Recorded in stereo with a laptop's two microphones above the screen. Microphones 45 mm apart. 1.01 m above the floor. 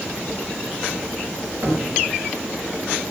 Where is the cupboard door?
55° right (ahead or behind), 3.5 m.